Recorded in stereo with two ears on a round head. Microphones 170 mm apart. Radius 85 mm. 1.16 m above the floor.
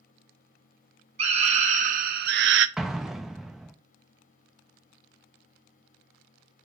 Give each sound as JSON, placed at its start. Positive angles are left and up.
{"t": 1.2, "sound": "a scream", "side_deg": -30, "distance_m": 1.1}
{"t": 2.8, "sound": "an explosion", "side_deg": 0, "distance_m": 0.5}